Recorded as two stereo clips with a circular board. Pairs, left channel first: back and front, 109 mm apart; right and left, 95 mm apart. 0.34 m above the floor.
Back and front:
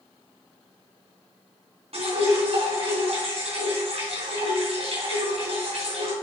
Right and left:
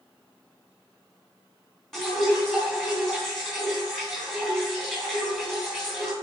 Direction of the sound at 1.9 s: 5° right.